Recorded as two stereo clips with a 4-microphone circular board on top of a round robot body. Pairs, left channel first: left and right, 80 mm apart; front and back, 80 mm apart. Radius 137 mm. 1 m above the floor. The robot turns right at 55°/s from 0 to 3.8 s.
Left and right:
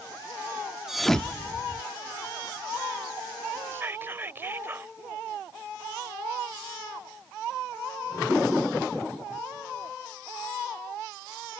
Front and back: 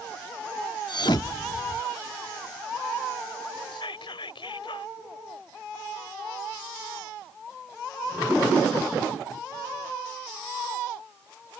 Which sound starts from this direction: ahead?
A thud, at 0.9 s.